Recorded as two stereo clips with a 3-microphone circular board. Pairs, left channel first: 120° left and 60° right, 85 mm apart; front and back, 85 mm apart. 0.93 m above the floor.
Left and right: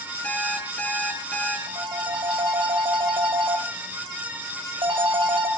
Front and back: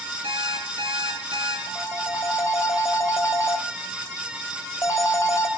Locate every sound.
0.2 s an alarm clock: 165° right, 8 m
1.7 s a phone ringing: 55° right, 3 m